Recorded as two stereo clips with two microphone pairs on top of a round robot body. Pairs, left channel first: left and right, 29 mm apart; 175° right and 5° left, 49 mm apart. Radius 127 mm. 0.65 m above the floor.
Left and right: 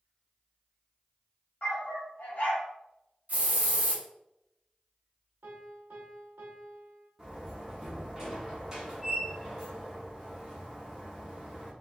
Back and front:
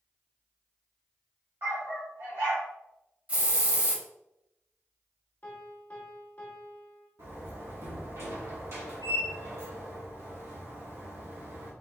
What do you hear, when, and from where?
1.6 s a dog barking: 55° left, 1.0 m
3.3 s a hiss: 60° right, 1.2 m
5.4 s a piano: 115° right, 0.5 m
7.2 s a door slam: 25° right, 1.2 m